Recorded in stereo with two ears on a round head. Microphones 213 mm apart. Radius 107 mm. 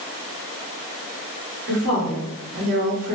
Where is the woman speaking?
40° right (ahead or behind), 1.4 m.